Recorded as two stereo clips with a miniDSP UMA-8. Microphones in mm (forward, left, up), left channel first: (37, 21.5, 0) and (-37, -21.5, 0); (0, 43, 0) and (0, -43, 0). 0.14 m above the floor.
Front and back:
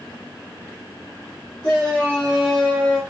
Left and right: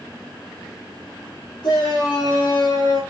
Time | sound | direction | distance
1.6 | a shout | 95° left | 4 m